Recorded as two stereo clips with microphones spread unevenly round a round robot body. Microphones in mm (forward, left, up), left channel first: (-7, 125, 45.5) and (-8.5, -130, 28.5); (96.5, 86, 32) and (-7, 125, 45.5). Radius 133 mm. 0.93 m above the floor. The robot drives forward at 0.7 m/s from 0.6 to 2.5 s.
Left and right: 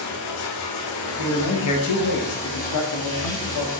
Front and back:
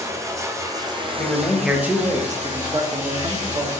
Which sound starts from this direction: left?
Running water, at 0.0 s.